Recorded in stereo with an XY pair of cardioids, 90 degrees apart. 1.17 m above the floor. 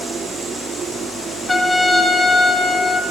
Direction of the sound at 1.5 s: 25° left.